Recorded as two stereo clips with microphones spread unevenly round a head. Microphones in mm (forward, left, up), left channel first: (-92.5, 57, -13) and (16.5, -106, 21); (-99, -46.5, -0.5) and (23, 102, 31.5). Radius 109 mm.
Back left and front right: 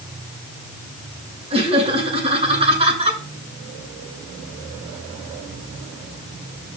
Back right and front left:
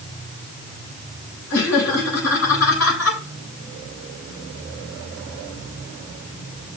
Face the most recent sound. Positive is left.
turn(degrees=-120)